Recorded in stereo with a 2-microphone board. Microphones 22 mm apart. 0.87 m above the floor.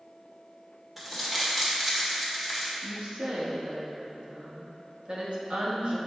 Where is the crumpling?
10° right (ahead or behind), 1.4 m.